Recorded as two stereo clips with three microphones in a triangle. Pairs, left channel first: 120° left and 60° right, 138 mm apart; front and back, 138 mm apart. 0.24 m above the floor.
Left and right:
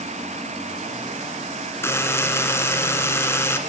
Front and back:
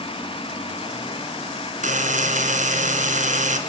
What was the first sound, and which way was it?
A buzzer, 170° right.